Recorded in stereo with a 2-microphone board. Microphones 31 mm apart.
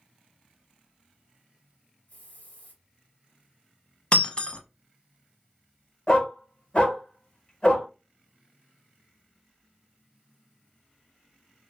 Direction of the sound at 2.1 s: 55° left (ahead or behind).